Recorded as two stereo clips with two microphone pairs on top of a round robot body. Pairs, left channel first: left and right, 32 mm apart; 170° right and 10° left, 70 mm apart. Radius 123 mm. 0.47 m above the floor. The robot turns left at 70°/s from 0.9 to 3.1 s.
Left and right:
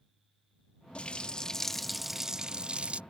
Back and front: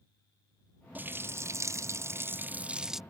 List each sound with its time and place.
0.9 s a running tap: 70° left; by 3.0 s 75° right